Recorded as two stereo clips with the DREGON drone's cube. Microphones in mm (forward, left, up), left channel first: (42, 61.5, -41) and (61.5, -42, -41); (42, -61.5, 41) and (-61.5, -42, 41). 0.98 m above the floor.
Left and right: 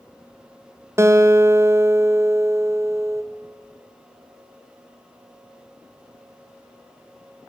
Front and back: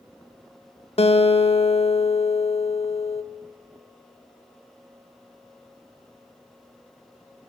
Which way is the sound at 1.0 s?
15° right.